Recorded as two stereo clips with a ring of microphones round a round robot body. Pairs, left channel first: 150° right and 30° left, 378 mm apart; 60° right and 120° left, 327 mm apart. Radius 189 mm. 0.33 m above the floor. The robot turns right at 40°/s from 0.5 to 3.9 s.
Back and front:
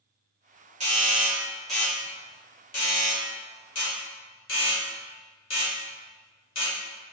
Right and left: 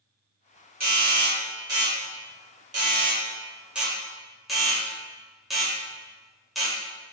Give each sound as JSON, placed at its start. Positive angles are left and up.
{"t": 0.8, "sound": "a doorbell", "azimuth_deg": 85, "distance_m": 1.5}